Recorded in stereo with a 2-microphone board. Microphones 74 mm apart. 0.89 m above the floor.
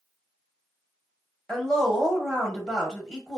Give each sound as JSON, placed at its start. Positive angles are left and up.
{"t": 1.5, "sound": "a woman speaking", "side_deg": 10, "distance_m": 0.9}